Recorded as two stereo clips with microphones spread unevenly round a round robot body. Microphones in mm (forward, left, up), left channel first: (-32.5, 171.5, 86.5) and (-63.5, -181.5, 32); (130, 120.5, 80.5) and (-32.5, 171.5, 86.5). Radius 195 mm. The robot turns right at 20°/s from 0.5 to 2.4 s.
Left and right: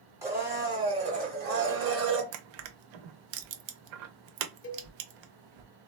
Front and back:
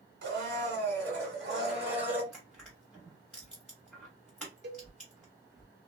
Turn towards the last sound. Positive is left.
turn(degrees=145)